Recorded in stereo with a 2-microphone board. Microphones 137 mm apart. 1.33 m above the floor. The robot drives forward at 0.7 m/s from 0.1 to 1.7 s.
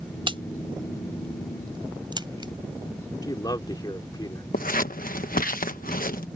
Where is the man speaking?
30° left (ahead or behind).